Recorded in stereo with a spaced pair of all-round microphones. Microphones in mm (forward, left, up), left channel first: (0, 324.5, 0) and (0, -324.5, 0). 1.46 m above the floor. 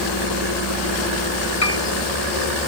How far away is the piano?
About 1.4 m.